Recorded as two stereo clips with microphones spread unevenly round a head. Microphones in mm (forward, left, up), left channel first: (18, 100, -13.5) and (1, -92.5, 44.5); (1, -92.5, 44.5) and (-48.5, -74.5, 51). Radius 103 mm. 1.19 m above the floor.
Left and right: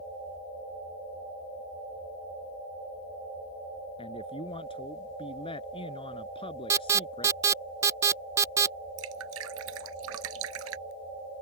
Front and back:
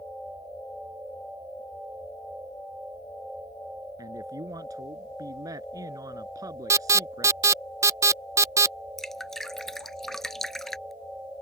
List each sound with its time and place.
4.0 s a man speaking: 150° left
6.7 s an alarm: 170° right
9.0 s dripping: 105° right